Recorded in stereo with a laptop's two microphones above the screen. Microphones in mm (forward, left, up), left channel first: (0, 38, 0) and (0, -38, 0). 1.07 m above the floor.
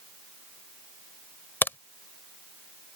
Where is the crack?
30° left (ahead or behind).